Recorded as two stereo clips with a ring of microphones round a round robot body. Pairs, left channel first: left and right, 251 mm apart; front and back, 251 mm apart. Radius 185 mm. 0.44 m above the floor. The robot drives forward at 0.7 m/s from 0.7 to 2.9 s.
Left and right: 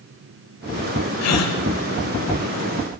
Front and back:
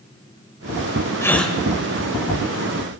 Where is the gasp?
80° left, 1.1 m; by 1.6 s 90° left, 1.1 m.